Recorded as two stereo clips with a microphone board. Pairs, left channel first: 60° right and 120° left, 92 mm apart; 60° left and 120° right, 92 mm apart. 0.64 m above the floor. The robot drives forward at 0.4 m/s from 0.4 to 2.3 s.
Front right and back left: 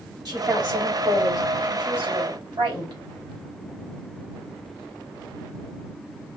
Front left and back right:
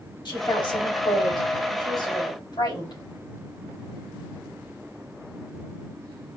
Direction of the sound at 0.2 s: 85° left.